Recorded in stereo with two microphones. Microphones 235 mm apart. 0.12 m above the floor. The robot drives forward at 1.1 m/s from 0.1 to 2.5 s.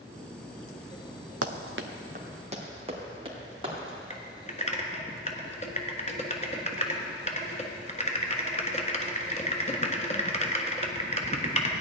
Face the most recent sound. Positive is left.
turn(degrees=30)  # may be behind; listen again after turning